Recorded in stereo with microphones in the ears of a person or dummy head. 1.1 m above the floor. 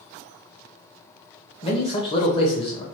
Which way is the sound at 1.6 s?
30° left (ahead or behind).